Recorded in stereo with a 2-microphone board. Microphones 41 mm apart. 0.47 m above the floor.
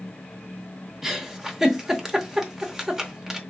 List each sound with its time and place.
1.0 s a giggle: 15° right (ahead or behind), 0.6 m